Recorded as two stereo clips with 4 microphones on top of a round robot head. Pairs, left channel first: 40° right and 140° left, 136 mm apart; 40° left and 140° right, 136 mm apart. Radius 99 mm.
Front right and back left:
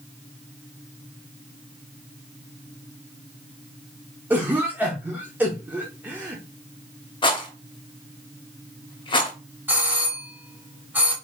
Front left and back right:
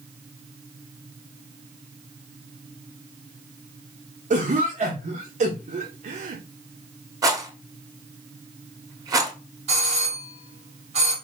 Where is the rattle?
85° right, 1.3 m.